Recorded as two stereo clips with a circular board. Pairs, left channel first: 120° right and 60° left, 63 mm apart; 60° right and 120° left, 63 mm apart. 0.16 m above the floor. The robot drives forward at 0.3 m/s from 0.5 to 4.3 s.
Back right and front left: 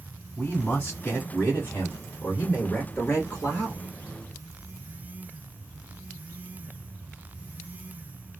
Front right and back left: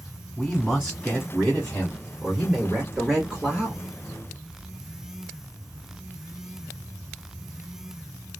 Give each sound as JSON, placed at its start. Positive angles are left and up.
{"t": 0.4, "sound": "a man speaking", "azimuth_deg": -100, "distance_m": 1.4}